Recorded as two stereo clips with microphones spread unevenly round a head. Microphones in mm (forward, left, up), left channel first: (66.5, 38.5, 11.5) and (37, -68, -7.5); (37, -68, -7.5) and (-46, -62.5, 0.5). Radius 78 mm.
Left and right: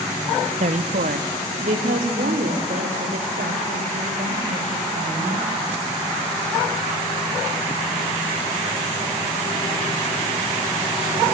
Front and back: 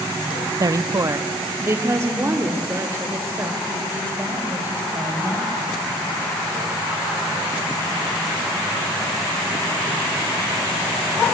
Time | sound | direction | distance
0.6 | a woman speaking | 135° right | 0.9 m